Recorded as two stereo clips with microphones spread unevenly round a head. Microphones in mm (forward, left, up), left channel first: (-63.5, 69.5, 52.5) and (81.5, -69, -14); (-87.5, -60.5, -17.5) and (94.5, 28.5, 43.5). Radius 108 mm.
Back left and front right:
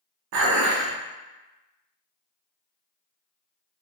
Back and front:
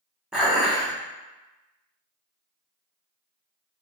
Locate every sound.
0.3 s dishes clattering: 55° right, 0.6 m